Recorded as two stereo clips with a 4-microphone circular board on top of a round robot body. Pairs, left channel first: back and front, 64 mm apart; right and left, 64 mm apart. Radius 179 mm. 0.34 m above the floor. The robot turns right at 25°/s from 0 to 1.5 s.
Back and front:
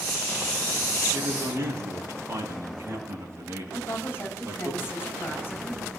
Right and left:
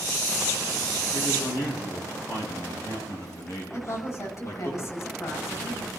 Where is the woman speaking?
125° right, 6 m.